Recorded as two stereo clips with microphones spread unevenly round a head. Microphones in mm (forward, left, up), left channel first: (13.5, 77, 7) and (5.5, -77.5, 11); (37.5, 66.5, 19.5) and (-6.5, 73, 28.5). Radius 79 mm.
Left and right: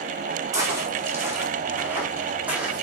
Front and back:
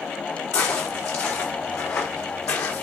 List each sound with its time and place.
0.5 s footsteps: 25° right, 4.5 m; by 2.8 s 10° right, 4 m